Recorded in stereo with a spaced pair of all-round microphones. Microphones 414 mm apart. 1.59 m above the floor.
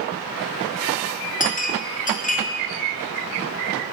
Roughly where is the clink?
Left.